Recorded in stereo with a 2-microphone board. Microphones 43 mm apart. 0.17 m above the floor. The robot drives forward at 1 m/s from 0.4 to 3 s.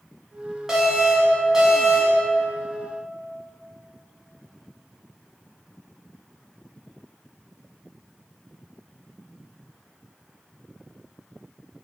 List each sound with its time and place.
0.7 s an alarm: 10° right (ahead or behind), 1.7 m